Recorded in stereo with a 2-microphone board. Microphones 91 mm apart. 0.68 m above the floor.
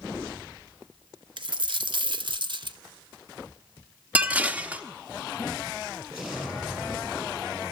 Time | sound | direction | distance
1.4 | a dropped coin | 60° right (ahead or behind) | 0.8 m
4.2 | dishes clattering | 15° right (ahead or behind) | 0.9 m
6.1 | an explosion | 15° right (ahead or behind) | 8.5 m